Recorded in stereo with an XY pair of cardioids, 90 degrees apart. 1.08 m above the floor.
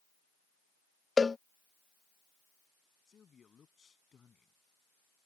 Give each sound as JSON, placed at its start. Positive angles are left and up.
{"t": 1.2, "sound": "a cowbell", "azimuth_deg": 30}
{"t": 3.1, "sound": "a man speaking", "azimuth_deg": 45}